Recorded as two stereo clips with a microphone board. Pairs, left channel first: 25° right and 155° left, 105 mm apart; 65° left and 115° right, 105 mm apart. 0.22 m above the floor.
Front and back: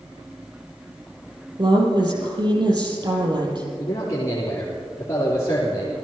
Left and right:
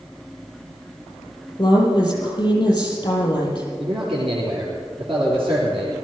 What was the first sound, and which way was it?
A woman speaking, 115° left.